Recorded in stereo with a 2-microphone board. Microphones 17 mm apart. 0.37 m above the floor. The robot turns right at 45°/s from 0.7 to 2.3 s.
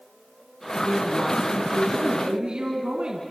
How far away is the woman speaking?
About 3.5 m.